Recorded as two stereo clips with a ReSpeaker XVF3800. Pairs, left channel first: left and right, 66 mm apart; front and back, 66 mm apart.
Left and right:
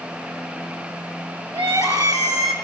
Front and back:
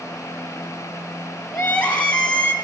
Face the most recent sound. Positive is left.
turn(degrees=-70)